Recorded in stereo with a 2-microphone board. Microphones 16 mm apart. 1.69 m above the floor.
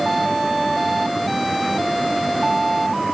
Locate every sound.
Only background noise.